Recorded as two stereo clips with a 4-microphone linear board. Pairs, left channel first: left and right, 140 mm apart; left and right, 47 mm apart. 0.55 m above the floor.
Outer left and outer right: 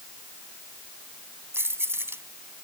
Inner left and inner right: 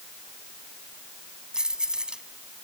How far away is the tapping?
I don't hear tapping.